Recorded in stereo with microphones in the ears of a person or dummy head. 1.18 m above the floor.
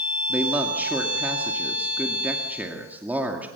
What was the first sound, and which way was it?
A man speaking, 10° right (ahead or behind).